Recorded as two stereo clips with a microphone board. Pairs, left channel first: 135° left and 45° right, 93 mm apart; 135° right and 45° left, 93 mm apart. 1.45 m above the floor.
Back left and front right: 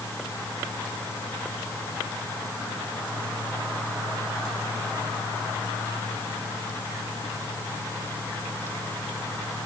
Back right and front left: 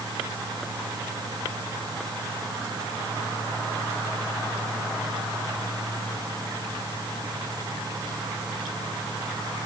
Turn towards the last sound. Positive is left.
No sound to turn to.